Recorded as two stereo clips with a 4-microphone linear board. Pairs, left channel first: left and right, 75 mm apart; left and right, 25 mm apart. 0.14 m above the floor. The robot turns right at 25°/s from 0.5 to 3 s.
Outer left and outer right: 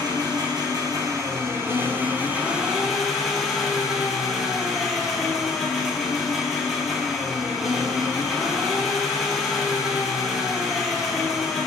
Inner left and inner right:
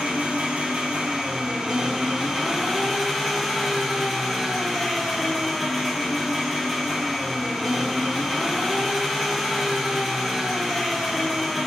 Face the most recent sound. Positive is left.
turn(degrees=-5)